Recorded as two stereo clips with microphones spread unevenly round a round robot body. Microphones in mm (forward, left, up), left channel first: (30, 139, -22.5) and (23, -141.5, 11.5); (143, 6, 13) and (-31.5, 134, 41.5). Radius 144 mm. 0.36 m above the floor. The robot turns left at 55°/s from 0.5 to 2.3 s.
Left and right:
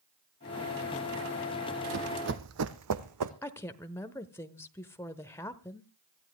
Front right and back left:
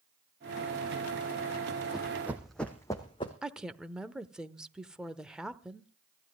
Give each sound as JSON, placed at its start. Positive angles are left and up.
{"t": 1.9, "sound": "running footsteps", "azimuth_deg": -130, "distance_m": 1.0}
{"t": 3.4, "sound": "a woman speaking", "azimuth_deg": 40, "distance_m": 0.9}